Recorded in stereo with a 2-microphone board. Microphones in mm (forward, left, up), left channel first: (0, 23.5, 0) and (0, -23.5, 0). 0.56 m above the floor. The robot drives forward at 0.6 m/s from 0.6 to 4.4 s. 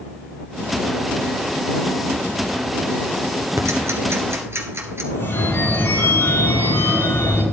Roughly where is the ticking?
Right.